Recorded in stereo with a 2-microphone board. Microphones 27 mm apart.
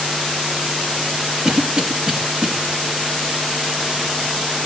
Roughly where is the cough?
Right.